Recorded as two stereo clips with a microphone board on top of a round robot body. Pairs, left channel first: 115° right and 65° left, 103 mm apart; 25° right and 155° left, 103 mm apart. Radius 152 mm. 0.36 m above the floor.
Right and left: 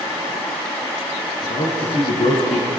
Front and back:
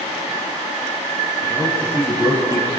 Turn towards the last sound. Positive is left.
turn(degrees=-140)